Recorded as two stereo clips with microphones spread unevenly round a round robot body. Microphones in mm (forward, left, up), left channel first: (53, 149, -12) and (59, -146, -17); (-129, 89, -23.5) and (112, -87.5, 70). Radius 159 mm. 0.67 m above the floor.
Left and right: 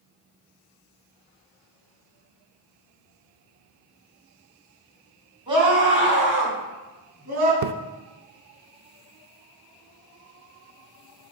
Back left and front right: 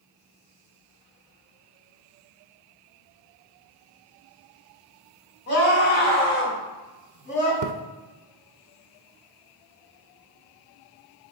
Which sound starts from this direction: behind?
A scream, at 5.5 s.